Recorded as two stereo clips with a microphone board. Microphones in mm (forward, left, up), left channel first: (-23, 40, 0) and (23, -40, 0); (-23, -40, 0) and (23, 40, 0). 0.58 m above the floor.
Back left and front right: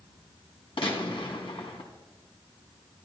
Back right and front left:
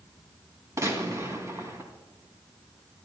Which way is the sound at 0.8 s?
115° left.